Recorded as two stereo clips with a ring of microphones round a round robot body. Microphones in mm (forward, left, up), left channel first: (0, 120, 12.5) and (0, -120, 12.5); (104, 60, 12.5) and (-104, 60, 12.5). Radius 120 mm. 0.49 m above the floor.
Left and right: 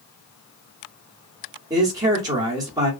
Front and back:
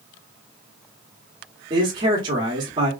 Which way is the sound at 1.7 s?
145° right.